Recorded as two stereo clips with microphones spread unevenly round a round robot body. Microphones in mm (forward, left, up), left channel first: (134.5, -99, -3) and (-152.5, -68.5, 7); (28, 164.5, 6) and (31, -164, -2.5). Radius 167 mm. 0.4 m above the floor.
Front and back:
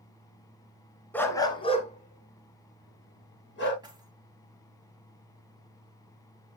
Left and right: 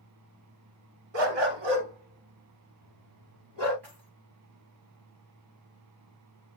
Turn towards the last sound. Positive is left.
turn(degrees=-110)